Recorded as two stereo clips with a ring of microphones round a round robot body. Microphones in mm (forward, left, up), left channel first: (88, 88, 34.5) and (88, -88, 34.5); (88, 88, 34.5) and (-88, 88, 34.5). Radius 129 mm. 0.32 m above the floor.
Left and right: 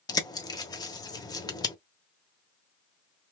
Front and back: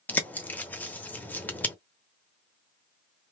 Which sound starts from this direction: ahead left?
A bird, at 0.1 s.